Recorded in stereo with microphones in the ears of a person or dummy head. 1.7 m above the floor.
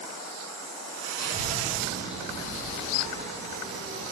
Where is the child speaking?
15° left (ahead or behind), 1.0 m; by 4.0 s 40° right (ahead or behind), 2 m.